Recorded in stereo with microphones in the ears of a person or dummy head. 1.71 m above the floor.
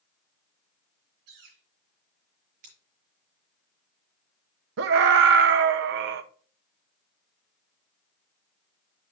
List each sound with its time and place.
1.3 s a bird: 55° right (ahead or behind), 2.5 m
2.6 s scissors: 35° right (ahead or behind), 5 m
4.8 s a scream: 55° right (ahead or behind), 1.0 m